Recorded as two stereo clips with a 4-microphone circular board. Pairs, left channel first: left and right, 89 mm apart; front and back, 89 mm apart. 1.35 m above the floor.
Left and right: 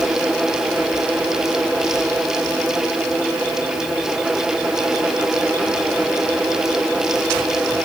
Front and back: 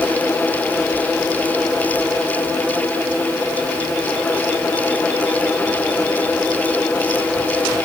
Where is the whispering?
I don't hear whispering.